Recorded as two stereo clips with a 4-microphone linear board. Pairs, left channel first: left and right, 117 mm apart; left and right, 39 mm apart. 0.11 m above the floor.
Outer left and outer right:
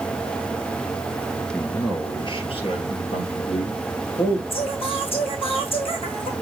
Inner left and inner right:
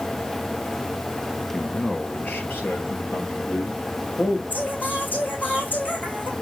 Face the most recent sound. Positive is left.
turn(degrees=55)  # may be behind; listen again after turning